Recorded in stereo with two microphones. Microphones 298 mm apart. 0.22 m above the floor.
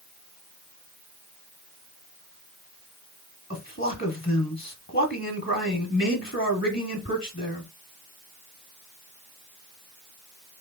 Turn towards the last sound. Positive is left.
turn(degrees=40)  # may be behind; listen again after turning